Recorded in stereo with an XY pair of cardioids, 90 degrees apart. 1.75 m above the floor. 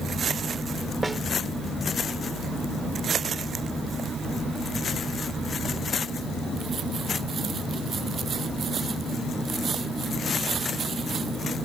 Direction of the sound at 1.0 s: 20° right.